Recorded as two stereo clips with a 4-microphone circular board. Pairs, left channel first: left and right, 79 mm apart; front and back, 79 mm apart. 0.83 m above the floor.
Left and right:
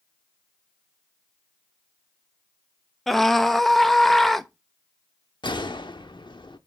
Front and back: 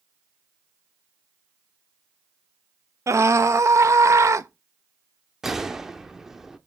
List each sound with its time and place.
3.1 s a scream: 175° left, 0.9 m
5.4 s a gunshot: 95° left, 0.9 m